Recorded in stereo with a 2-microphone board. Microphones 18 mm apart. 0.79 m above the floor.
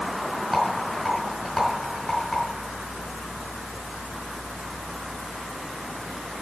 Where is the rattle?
10° left (ahead or behind), 5 m.